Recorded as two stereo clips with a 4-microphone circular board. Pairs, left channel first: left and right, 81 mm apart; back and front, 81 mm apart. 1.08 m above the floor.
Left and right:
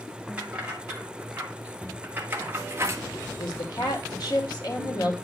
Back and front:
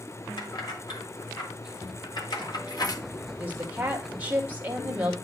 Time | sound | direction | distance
0.4 | keys jangling | 165° right | 2.5 m
3.3 | a woman speaking | 65° left | 2 m